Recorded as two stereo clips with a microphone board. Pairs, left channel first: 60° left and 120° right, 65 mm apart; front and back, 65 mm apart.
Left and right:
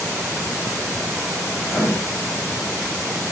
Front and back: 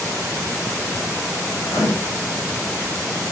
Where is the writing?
35° right, 7.5 m.